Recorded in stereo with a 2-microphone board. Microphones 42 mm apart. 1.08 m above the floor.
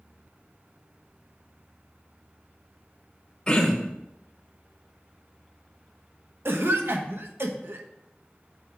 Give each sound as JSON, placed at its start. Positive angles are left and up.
{"t": 3.5, "sound": "throat clearing", "side_deg": 20, "distance_m": 1.2}
{"t": 6.5, "sound": "a cough", "side_deg": -65, "distance_m": 1.0}